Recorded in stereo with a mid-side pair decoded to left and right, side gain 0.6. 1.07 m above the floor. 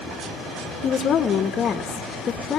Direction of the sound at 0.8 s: 45° left.